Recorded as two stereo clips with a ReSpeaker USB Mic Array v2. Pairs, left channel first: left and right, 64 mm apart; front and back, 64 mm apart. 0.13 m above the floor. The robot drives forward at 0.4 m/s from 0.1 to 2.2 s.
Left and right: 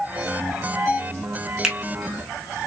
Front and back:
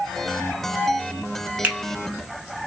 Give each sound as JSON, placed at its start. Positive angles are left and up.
{"t": 1.6, "sound": "a finger snap", "azimuth_deg": -165, "distance_m": 0.9}